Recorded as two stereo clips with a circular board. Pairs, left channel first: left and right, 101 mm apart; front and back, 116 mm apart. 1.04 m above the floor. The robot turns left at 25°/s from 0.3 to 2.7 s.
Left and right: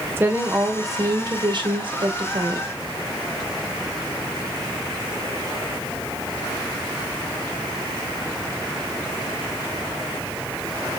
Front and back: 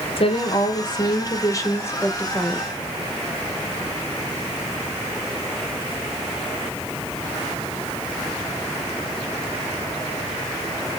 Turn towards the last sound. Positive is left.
turn(degrees=-85)